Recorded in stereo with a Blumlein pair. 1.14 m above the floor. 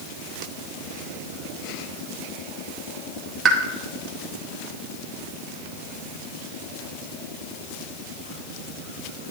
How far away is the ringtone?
No ringtone in this recording.